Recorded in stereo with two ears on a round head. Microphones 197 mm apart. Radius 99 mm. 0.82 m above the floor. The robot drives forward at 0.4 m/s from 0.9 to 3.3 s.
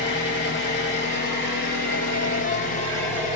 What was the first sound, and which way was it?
An engine running, 55° left (ahead or behind).